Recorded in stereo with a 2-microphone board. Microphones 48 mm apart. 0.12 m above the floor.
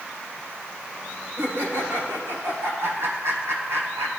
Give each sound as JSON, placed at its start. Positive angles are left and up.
{"t": 1.4, "sound": "laughter", "side_deg": -60, "distance_m": 6.0}